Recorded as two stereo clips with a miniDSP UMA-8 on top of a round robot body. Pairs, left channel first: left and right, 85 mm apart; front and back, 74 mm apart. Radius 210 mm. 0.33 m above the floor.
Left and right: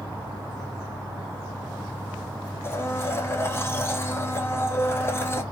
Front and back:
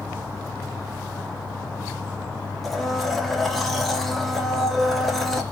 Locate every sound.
2.6 s a blender: 85° left, 0.9 m